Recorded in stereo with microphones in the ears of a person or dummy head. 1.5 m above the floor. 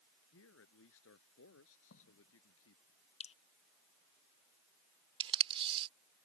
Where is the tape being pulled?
30° right (ahead or behind).